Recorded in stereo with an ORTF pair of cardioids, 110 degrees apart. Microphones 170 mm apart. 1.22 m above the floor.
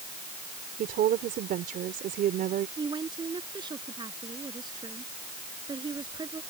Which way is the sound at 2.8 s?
25° right.